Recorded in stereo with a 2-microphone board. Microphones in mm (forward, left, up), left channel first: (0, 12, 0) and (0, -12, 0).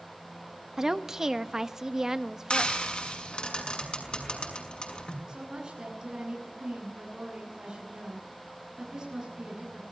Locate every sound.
0.8 s a woman speaking: 25° right (ahead or behind), 1.2 m
2.5 s frying: 35° left (ahead or behind), 6 m
5.3 s a woman speaking: 25° right (ahead or behind), 10 m